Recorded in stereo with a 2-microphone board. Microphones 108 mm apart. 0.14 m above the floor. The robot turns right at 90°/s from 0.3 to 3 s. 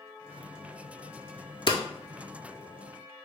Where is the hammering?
50° left (ahead or behind), 0.6 m; by 1.8 s 40° left (ahead or behind), 0.6 m.